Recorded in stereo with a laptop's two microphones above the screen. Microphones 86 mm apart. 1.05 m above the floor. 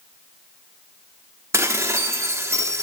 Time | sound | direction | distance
1.5 | dishes clattering | 30° right (ahead or behind) | 1.3 m